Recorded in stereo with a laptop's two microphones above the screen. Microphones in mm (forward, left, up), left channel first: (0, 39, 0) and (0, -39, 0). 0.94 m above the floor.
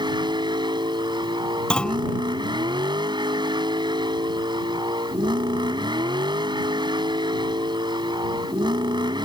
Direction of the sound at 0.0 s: 85° right.